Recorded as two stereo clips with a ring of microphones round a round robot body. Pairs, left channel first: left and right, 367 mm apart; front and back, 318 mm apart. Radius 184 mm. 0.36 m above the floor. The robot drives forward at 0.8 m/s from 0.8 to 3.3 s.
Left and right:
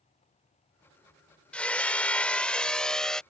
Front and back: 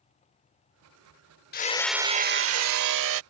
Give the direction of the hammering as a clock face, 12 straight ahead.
12 o'clock.